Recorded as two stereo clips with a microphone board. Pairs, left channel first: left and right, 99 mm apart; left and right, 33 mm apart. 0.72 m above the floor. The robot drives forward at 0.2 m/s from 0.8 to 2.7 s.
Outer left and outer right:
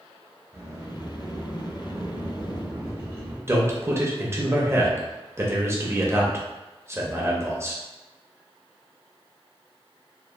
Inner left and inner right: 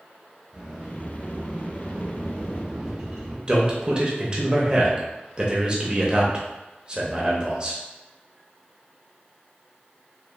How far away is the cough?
I don't hear a cough.